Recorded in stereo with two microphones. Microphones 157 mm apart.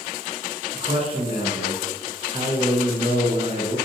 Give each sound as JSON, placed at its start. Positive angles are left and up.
{"t": 0.7, "sound": "a man speaking", "side_deg": -40, "distance_m": 0.7}